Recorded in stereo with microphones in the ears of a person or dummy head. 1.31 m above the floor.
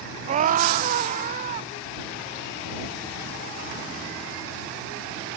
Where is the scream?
40° right (ahead or behind).